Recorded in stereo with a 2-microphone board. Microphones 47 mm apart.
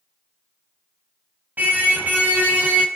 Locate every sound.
1.6 s a car horn: 40° right (ahead or behind), 5 m